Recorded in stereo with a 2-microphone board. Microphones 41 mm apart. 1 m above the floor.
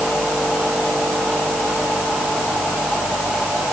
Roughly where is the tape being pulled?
No tape being pulled in this recording.